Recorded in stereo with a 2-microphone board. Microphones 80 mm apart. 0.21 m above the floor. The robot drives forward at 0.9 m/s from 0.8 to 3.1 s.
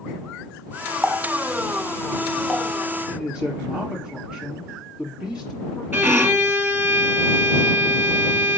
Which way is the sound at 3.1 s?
10° right (ahead or behind).